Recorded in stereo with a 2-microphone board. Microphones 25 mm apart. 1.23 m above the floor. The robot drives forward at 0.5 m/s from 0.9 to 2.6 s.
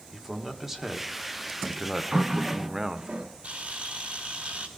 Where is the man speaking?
10° right (ahead or behind), 1.6 m; by 3.1 s 20° right (ahead or behind), 0.9 m.